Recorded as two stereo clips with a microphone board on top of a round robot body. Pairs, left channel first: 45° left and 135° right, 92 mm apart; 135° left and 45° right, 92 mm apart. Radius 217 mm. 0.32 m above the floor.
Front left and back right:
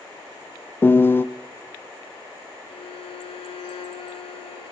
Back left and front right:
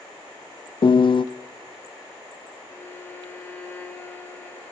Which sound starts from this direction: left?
A piano, at 0.8 s.